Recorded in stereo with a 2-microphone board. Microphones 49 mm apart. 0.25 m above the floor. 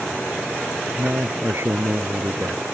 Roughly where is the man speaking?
Right.